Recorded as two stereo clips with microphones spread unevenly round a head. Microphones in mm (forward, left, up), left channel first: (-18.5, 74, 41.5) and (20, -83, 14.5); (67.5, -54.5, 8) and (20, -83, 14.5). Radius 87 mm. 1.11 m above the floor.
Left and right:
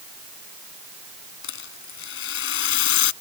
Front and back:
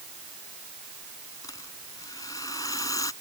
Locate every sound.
1.4 s a rattle: 95° left